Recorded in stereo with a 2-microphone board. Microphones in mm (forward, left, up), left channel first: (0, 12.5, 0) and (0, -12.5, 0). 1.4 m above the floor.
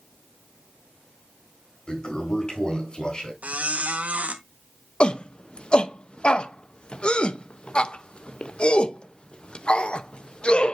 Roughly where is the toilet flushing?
Left.